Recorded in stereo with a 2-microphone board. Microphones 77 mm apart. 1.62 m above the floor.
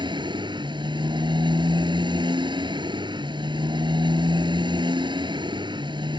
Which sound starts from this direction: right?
A motorcycle, at 0.0 s.